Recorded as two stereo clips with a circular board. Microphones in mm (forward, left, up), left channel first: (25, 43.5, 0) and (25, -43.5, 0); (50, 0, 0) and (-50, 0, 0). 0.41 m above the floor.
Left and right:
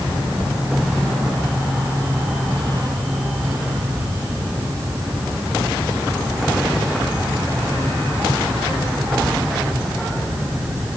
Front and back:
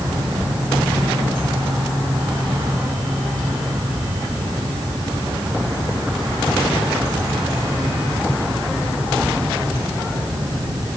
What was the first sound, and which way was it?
Only background noise.